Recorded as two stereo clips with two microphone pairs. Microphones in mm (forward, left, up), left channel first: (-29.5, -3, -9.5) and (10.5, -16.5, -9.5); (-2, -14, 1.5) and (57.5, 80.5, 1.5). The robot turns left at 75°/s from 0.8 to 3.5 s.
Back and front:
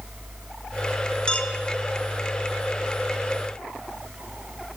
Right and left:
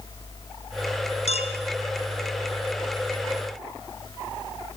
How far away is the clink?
About 1.8 m.